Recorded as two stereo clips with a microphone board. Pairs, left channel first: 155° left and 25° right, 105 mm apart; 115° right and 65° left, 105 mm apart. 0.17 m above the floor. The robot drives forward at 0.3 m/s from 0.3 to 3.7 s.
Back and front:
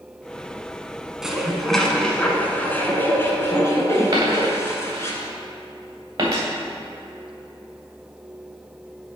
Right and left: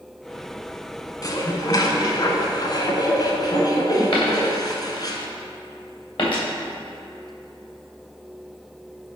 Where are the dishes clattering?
105° right, 0.9 m; by 5.1 s 150° right, 1.3 m.